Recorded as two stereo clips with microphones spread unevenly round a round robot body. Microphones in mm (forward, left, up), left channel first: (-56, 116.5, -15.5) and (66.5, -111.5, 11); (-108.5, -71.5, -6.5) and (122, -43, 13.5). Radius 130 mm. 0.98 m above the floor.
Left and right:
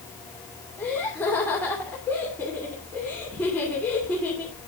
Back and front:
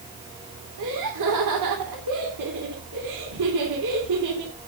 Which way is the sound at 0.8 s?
35° left.